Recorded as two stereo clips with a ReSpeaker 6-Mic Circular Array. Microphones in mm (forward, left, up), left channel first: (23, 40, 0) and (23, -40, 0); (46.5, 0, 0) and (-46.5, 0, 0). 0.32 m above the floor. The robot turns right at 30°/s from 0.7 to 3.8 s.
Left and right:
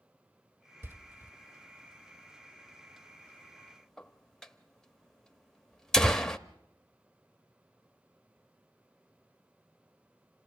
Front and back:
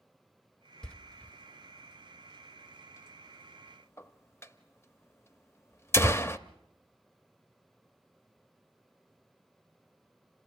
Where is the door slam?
75° right, 0.6 m; by 6.4 s 15° left, 0.6 m.